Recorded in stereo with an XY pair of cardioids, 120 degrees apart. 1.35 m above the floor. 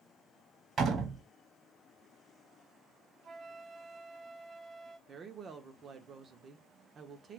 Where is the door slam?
45° right, 1.3 m.